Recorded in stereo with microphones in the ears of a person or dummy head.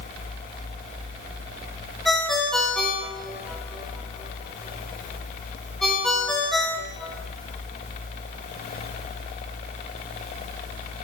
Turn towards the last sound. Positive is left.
turn(degrees=5)  # may be behind; listen again after turning